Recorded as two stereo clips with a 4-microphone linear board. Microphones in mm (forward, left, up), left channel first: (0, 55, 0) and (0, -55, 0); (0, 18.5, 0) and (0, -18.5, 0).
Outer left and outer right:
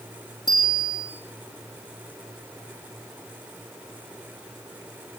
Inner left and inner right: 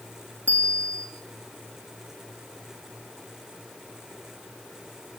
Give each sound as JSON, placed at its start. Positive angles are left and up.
{"t": 0.5, "sound": "a bicycle bell", "side_deg": 40, "distance_m": 6.5}